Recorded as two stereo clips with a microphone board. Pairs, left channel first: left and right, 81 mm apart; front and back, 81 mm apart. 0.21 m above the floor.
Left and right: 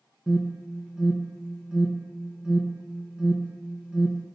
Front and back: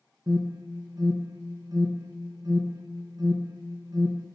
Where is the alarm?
170° right, 1.3 m.